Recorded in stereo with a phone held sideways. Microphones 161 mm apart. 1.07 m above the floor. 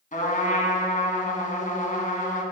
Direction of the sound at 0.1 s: 55° left (ahead or behind).